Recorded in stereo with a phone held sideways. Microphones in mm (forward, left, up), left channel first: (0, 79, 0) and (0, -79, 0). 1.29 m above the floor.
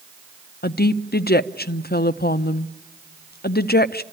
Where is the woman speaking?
70° left (ahead or behind), 0.5 m.